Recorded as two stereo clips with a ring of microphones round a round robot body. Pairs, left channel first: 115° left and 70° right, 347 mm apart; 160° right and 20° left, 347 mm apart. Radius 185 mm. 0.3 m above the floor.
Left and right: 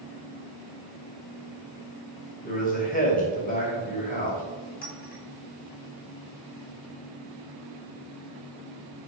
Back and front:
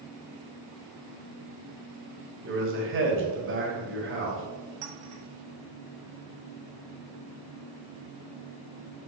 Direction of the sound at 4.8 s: 50° left.